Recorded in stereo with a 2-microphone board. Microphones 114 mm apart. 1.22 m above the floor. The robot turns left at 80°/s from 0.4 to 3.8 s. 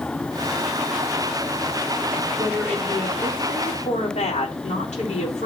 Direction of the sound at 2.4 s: 165° right.